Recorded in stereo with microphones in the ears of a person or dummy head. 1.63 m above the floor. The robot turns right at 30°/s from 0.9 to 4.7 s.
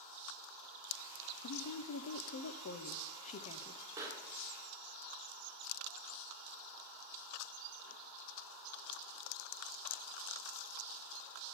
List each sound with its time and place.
1.4 s a woman speaking: 90° left, 0.7 m; by 3.8 s 160° left, 0.7 m
4.0 s a pop: 15° right (ahead or behind), 1.6 m; by 8.0 s centre (ahead or behind), 1.6 m